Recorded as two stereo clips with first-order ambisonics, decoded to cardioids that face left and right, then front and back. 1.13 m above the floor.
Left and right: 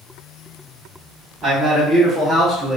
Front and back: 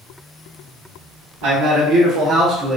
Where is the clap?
No clap in this recording.